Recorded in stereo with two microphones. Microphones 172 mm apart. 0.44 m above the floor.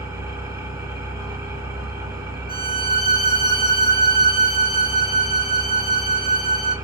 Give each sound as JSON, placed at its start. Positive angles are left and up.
{"t": 0.0, "sound": "an engine running", "side_deg": -20, "distance_m": 0.8}
{"t": 2.5, "sound": "a violin", "side_deg": 75, "distance_m": 1.1}